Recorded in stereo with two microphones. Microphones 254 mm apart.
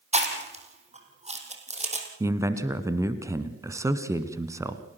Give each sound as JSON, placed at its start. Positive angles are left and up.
{"t": 0.1, "sound": "chewing", "side_deg": -25, "distance_m": 3.0}
{"t": 2.2, "sound": "a man speaking", "side_deg": -10, "distance_m": 1.2}